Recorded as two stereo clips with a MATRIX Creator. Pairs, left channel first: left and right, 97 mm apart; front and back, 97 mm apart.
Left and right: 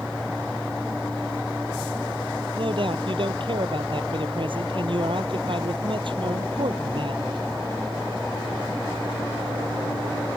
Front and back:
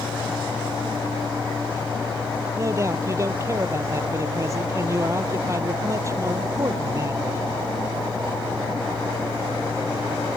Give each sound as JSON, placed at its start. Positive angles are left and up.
{"t": 2.5, "sound": "a man speaking", "azimuth_deg": -120}